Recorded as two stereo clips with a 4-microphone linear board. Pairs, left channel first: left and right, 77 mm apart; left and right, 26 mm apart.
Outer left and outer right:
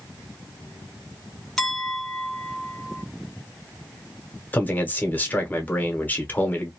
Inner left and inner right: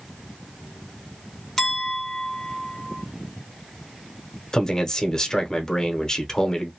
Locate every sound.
1.6 s a clink: 10° left (ahead or behind), 1.0 m
4.5 s a man speaking: 25° left (ahead or behind), 0.9 m